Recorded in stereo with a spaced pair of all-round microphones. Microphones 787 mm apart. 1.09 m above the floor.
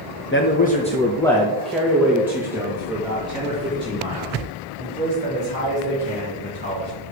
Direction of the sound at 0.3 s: 20° left (ahead or behind).